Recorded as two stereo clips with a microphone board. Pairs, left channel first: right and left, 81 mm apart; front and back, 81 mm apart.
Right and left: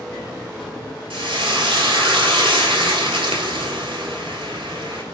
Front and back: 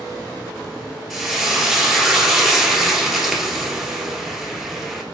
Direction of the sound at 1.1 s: 90° left.